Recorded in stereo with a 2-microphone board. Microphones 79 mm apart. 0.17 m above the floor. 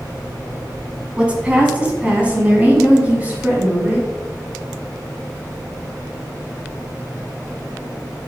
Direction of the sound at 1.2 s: 15° right (ahead or behind).